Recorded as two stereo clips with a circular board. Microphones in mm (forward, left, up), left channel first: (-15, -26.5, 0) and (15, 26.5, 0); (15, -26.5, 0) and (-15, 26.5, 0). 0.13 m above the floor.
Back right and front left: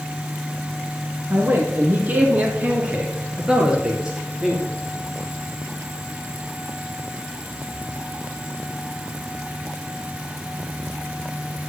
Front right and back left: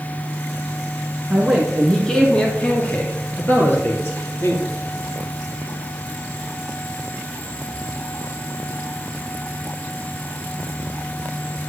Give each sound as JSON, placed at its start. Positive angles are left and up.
{"t": 1.3, "sound": "a man speaking", "azimuth_deg": 55, "distance_m": 1.4}